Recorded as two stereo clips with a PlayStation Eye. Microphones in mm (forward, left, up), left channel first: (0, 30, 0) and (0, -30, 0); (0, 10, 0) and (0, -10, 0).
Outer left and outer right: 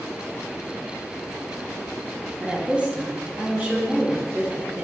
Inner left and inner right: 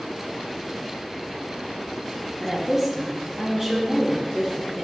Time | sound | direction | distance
2.4 | a woman speaking | 20° right (ahead or behind) | 0.8 m